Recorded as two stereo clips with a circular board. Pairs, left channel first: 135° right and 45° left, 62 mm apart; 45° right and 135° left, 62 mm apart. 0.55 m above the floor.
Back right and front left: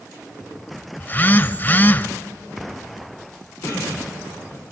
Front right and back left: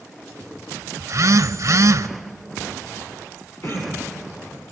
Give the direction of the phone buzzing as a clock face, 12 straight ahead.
6 o'clock.